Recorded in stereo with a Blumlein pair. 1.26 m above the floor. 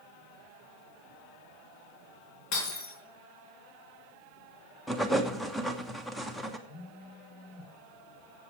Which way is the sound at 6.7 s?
35° left.